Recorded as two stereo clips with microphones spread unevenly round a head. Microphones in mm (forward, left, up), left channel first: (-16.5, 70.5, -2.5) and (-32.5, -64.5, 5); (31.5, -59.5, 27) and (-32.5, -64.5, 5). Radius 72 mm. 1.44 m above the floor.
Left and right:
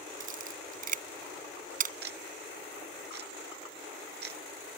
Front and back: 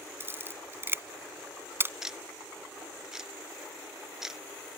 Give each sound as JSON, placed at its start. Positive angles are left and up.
{"t": 0.2, "sound": "a camera shutter", "azimuth_deg": -120}
{"t": 2.0, "sound": "ticking", "azimuth_deg": -95}